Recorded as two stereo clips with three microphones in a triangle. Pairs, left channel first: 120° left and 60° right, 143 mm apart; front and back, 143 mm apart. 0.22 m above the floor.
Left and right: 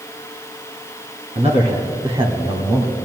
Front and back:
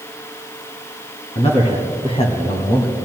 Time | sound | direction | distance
1.4 | a man speaking | 35° right | 2 m